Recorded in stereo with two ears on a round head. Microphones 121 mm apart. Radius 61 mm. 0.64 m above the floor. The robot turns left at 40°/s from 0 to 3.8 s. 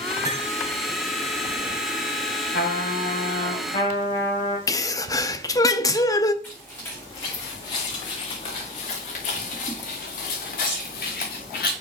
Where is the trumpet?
85° left, 4.5 m; by 4.6 s 35° left, 4.5 m.